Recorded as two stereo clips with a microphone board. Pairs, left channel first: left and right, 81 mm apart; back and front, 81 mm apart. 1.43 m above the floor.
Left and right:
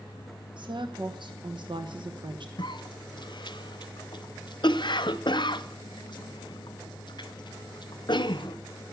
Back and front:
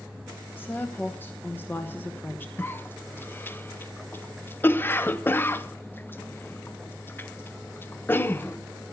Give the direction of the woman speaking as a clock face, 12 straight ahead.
4 o'clock.